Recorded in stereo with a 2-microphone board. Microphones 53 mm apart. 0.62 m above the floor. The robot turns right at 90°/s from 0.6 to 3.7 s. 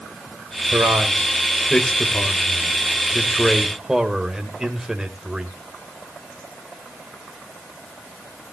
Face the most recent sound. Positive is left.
turn(degrees=-10)  # may be behind; listen again after turning